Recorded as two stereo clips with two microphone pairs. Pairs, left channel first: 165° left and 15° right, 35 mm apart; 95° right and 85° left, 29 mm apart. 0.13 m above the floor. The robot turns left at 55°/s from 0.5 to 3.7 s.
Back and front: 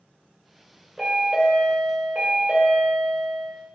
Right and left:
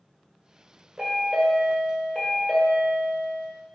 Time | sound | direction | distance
1.0 | a chime | 80° left | 1.8 m